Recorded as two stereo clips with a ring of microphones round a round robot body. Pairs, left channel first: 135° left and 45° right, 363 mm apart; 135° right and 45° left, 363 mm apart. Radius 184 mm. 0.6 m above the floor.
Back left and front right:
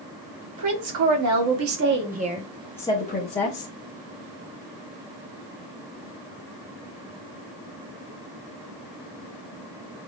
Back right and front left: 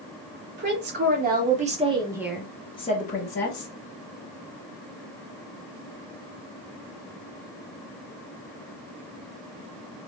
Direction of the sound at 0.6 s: 15° right.